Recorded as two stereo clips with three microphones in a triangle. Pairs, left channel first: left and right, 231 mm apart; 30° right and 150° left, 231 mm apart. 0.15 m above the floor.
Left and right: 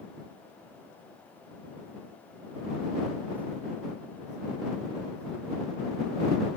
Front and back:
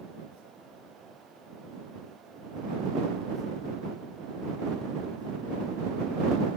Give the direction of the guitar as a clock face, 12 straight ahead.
No guitar in this recording.